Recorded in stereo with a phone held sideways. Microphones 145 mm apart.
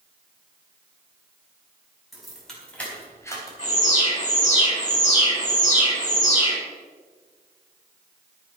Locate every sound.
2.1 s keys jangling: centre (ahead or behind), 4.5 m; by 3.5 s 25° left (ahead or behind), 3.5 m
3.6 s an alarm: 45° left (ahead or behind), 6.5 m